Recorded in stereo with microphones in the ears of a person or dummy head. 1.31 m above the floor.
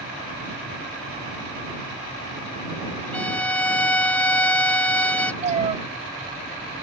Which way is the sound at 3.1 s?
10° left (ahead or behind).